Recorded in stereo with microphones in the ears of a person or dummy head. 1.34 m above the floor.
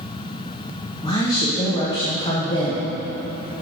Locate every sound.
1.0 s a woman speaking: 30° left (ahead or behind), 1.0 m